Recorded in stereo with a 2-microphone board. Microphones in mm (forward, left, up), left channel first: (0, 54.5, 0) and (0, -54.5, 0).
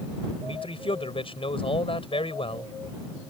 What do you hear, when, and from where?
0.4 s a man speaking: 60° left (ahead or behind)